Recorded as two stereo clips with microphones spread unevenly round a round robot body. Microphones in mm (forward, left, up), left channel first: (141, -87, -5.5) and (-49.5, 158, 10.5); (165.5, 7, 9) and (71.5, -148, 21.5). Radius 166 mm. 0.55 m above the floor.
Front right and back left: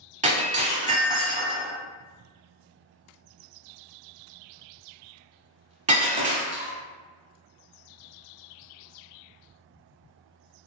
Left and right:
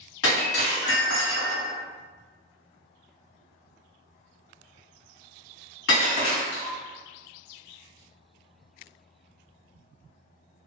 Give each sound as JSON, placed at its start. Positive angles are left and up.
{"t": 0.2, "sound": "breaking glass", "azimuth_deg": 60, "distance_m": 1.1}